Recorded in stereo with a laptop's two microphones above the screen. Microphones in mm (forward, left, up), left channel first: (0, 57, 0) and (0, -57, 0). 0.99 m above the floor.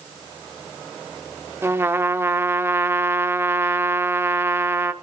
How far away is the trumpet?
About 0.6 m.